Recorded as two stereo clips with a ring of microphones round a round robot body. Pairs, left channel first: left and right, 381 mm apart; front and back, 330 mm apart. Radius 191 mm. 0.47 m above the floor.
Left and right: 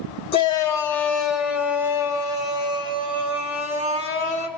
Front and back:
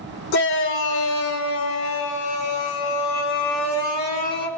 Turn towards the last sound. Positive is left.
turn(degrees=-15)